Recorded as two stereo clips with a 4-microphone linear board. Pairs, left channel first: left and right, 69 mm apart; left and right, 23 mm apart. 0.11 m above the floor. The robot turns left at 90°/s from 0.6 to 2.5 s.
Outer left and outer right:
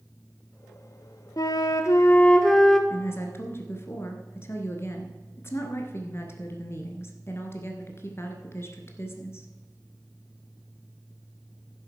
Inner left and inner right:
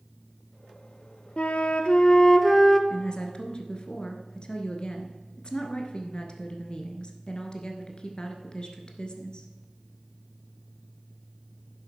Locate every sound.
1.4 s a flute: 110° left, 0.9 m; by 2.8 s 5° left, 0.9 m
2.9 s a woman speaking: 35° left (ahead or behind), 1.5 m